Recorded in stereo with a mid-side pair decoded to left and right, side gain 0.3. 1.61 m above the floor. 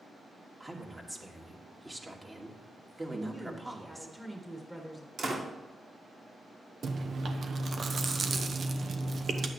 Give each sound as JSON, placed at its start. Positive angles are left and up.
{"t": 0.6, "sound": "a woman speaking", "azimuth_deg": -25, "distance_m": 2.0}
{"t": 3.1, "sound": "a woman speaking", "azimuth_deg": -10, "distance_m": 1.7}
{"t": 5.2, "sound": "a door slam", "azimuth_deg": -65, "distance_m": 2.5}
{"t": 6.8, "sound": "chewing", "azimuth_deg": -65, "distance_m": 0.9}